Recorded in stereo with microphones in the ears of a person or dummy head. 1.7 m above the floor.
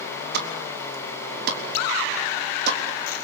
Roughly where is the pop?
Right.